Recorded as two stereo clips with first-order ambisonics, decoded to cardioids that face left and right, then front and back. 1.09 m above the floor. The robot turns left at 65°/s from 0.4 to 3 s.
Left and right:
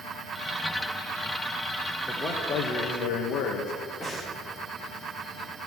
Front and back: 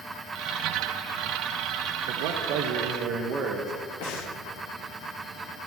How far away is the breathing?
About 1.2 m.